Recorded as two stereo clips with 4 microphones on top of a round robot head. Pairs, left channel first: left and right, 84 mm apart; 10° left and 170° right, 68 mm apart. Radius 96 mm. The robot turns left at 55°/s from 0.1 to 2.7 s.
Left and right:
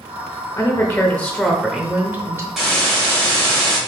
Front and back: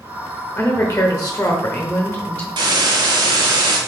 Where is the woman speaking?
50° left, 1.0 m; by 2.5 s 50° right, 1.0 m.